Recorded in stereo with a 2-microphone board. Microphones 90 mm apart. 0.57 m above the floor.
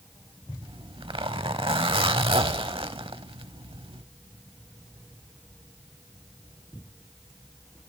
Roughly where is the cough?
No cough in this recording.